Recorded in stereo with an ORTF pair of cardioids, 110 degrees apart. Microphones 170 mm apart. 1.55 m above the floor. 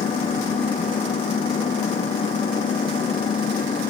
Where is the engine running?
40° left.